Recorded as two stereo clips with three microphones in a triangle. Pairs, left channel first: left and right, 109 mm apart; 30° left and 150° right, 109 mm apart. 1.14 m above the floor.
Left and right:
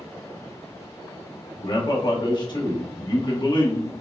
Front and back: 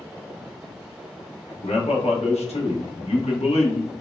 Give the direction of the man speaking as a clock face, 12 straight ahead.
11 o'clock.